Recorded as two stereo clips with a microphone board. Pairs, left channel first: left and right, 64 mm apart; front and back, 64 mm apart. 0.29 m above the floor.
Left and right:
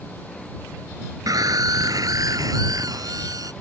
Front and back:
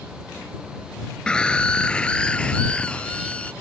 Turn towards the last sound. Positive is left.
turn(degrees=-70)